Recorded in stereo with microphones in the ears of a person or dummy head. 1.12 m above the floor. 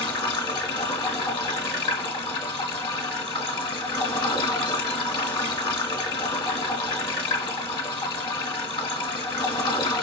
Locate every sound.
0.0 s running water: 25° left (ahead or behind), 1.4 m